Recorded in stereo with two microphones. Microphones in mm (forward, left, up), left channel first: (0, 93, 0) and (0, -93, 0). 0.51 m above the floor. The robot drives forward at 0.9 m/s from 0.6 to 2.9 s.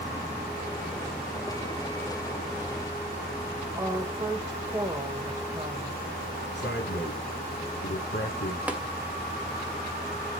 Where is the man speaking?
75° left (ahead or behind), 7 m.